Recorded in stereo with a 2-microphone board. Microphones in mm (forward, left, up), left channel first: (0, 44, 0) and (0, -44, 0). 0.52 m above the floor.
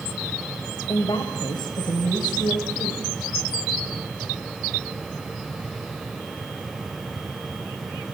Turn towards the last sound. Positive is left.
turn(degrees=60)  # may be behind; listen again after turning